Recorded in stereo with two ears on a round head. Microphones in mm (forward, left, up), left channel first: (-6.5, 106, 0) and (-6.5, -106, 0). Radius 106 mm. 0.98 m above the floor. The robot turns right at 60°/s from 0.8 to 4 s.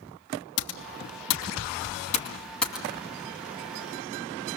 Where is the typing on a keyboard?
65° left (ahead or behind), 2.5 m; by 2.9 s 10° right (ahead or behind), 2.5 m.